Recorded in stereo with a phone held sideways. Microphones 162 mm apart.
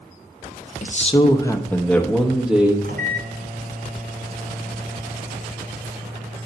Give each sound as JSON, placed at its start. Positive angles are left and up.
{"t": 0.8, "sound": "a man speaking", "side_deg": 55, "distance_m": 0.6}
{"t": 2.8, "sound": "a microwave", "side_deg": -65, "distance_m": 1.0}